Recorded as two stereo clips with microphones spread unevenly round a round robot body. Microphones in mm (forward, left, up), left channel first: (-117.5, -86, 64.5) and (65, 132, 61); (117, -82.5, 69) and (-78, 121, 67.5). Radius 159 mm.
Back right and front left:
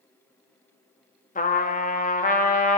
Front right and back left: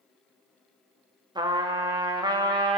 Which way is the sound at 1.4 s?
165° right.